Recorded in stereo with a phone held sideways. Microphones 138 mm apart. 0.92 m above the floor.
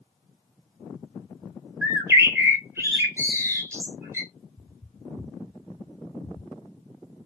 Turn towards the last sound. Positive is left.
turn(degrees=-5)  # may be behind; listen again after turning